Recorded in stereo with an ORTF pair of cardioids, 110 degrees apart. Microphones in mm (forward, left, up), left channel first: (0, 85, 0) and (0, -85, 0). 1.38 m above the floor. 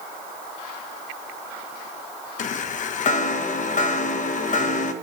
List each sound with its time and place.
2.4 s a chime: 50° left, 1.0 m